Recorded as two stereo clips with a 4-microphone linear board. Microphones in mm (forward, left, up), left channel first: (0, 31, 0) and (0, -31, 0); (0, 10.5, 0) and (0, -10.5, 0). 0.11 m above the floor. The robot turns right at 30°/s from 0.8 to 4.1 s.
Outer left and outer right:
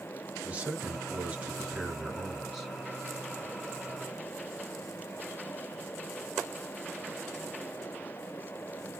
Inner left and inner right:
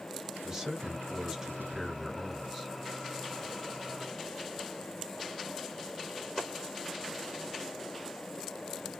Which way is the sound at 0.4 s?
25° right (ahead or behind).